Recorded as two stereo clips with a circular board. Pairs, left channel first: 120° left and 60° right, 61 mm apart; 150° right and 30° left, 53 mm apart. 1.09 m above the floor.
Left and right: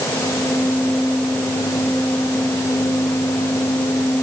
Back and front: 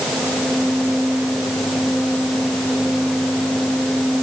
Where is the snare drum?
No snare drum in this recording.